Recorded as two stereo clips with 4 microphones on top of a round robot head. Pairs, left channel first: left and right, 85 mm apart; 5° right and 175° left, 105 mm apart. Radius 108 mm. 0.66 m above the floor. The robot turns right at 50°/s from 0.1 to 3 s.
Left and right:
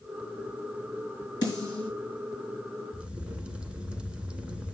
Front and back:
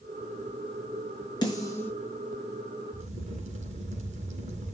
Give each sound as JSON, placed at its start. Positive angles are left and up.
{"t": 1.4, "sound": "a snare drum", "azimuth_deg": 45, "distance_m": 6.0}
{"t": 2.9, "sound": "a crack", "azimuth_deg": -170, "distance_m": 2.0}